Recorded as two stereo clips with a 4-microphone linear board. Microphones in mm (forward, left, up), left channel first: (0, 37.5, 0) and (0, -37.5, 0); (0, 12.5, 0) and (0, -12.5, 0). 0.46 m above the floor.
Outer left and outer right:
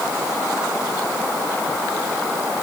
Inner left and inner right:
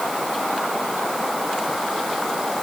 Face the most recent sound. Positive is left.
No sound to turn to.